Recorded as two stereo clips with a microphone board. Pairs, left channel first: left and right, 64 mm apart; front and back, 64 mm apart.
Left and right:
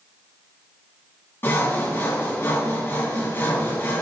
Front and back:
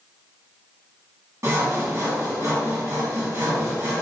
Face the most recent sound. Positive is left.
turn(degrees=140)